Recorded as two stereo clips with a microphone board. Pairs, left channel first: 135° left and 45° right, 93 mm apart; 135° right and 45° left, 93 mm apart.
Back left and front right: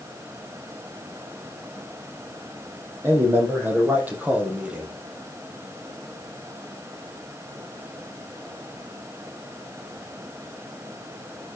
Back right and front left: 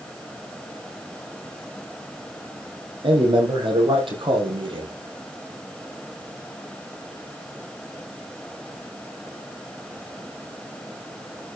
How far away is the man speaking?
About 5 m.